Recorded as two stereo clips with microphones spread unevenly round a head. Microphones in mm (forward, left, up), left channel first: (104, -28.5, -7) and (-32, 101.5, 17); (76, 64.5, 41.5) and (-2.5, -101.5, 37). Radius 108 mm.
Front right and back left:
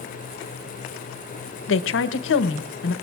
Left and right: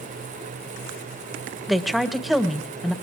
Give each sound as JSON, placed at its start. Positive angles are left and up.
{"t": 1.7, "sound": "a woman speaking", "azimuth_deg": -25, "distance_m": 0.9}